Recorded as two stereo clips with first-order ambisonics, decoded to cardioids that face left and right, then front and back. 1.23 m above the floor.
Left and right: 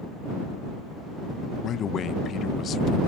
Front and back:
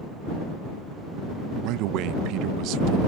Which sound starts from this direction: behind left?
A man speaking, at 1.6 s.